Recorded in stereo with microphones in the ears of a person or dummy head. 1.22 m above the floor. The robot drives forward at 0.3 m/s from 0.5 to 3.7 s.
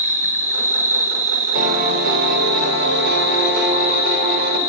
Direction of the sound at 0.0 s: 30° right (ahead or behind).